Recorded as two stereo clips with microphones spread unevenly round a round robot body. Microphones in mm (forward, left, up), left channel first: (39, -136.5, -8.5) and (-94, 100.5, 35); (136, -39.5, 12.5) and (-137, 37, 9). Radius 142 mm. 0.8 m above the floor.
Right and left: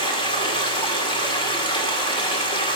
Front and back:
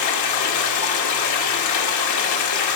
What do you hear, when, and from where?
0.0 s running water: 10° left, 1.8 m